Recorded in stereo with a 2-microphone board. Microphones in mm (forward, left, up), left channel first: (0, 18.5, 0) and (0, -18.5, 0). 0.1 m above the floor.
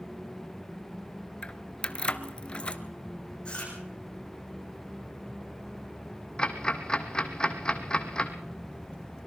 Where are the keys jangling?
25° left (ahead or behind), 0.9 m.